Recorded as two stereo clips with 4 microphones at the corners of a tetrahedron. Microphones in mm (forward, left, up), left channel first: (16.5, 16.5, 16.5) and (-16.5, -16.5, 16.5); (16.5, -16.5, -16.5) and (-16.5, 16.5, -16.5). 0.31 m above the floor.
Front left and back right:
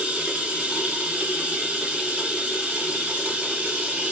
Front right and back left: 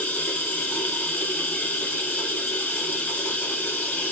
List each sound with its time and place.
0.0 s running water: 80° right, 0.9 m